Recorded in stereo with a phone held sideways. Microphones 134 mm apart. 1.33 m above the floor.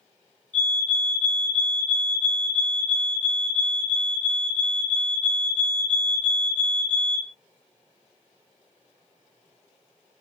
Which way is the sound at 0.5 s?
10° left (ahead or behind).